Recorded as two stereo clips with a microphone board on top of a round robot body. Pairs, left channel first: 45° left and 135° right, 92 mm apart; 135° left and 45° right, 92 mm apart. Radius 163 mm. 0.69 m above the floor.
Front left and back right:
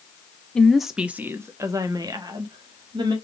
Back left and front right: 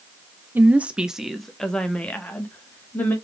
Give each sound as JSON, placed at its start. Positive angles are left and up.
{"t": 0.6, "sound": "a woman speaking", "azimuth_deg": -20, "distance_m": 0.9}